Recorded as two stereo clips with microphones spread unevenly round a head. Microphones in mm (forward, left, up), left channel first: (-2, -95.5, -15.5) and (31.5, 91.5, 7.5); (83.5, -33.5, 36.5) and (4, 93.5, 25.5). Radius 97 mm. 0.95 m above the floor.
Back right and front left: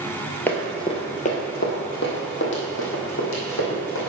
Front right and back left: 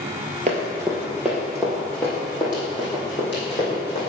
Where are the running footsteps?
175° left, 1.3 m; by 4.1 s 120° right, 3.5 m.